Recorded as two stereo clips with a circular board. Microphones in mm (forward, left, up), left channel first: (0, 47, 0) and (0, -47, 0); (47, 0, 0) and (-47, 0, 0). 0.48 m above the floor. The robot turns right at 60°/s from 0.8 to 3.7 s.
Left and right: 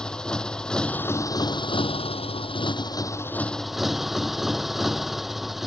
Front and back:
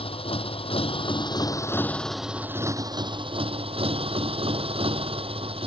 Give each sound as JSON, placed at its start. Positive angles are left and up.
{"t": 0.0, "sound": "a motorcycle", "azimuth_deg": 10}